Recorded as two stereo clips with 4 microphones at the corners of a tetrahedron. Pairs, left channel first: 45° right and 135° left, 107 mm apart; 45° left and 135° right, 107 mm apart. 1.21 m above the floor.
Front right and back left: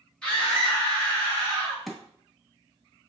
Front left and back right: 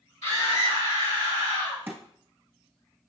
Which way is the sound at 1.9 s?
135° right.